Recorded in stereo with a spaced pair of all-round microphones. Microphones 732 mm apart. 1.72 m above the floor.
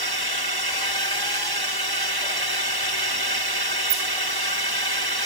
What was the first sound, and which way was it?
A drone, 30° right (ahead or behind).